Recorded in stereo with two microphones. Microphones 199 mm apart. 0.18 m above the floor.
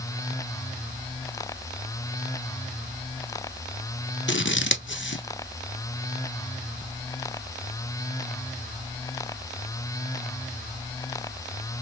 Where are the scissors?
70° left (ahead or behind), 0.7 m.